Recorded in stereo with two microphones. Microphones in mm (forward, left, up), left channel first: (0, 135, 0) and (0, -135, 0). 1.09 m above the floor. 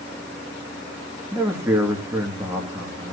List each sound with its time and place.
1.3 s a man speaking: 10° right (ahead or behind), 2 m